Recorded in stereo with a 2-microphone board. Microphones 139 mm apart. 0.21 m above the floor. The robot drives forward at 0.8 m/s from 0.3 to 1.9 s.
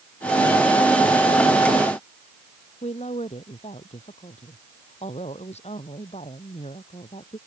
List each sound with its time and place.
2.8 s a woman speaking: 50° left (ahead or behind)